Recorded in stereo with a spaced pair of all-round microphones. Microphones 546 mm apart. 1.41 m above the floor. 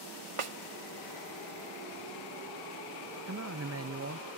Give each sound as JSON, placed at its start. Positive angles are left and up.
{"t": 0.4, "sound": "a snare drum", "side_deg": -65, "distance_m": 1.0}
{"t": 3.3, "sound": "a man speaking", "side_deg": -30, "distance_m": 0.6}